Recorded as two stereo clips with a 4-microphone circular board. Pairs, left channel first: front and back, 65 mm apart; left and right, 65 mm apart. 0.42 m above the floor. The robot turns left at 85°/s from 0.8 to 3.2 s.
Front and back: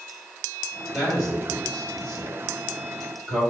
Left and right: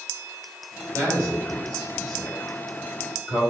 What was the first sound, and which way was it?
A man speaking, 105° right.